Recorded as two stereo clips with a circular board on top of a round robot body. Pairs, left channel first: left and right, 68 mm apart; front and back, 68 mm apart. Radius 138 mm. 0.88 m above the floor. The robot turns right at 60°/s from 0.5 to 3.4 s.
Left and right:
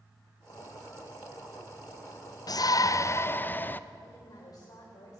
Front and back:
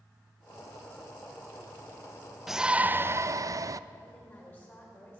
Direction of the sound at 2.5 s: 95° left.